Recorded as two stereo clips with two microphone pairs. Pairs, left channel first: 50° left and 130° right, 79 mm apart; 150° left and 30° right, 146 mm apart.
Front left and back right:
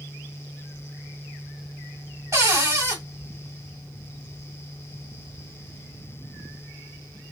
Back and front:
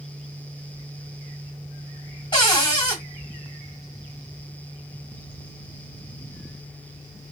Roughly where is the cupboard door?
Behind.